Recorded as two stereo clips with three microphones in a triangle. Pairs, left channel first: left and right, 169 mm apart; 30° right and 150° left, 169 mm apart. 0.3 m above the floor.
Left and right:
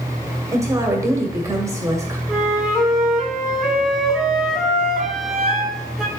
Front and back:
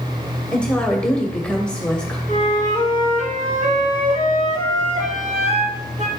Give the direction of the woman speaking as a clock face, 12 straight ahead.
3 o'clock.